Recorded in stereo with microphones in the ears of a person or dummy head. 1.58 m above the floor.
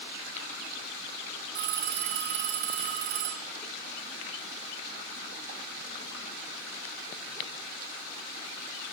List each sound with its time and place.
1.6 s a phone ringing: 60° right (ahead or behind), 2.5 m